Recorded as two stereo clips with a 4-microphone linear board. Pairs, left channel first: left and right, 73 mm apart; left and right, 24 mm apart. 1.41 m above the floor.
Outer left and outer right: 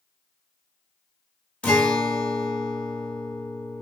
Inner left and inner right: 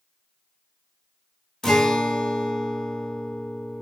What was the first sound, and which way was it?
A guitar, 15° left (ahead or behind).